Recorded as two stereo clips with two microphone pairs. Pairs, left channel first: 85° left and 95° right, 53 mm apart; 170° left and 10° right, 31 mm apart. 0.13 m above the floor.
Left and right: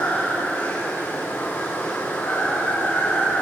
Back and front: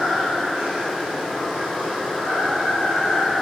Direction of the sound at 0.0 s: 40° left.